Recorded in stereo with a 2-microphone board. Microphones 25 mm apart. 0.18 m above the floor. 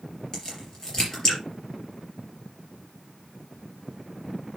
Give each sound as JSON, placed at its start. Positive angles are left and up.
{"t": 0.3, "sound": "a crack", "side_deg": 20, "distance_m": 4.5}